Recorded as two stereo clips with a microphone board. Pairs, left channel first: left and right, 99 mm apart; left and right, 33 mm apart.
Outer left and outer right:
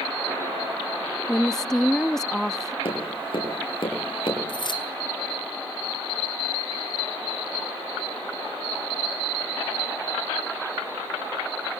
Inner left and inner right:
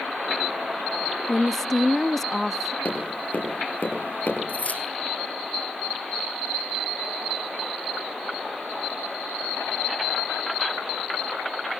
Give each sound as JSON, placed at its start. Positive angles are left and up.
{"t": 1.3, "sound": "a woman speaking", "side_deg": 5, "distance_m": 0.6}
{"t": 2.9, "sound": "tapping", "side_deg": 65, "distance_m": 8.0}
{"t": 4.5, "sound": "keys jangling", "side_deg": 55, "distance_m": 2.0}